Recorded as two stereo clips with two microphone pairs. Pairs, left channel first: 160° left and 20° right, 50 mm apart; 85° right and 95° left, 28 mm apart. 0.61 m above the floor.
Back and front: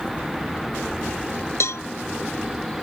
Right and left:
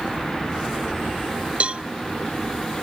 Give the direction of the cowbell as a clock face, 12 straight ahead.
7 o'clock.